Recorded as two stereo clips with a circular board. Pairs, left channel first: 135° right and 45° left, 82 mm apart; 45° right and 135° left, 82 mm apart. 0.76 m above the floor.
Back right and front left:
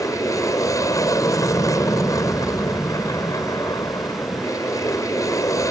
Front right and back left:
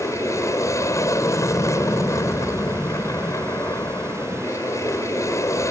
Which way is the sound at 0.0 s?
95° right.